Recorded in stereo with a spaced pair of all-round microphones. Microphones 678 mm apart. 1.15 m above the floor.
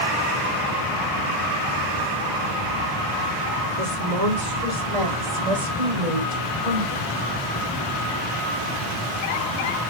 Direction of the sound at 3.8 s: 70° right (ahead or behind).